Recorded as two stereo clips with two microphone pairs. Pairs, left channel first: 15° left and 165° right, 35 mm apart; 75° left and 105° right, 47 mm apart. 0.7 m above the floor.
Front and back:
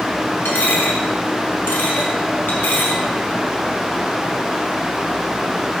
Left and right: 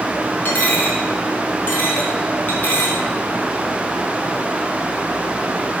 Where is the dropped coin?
25° left, 1.5 m.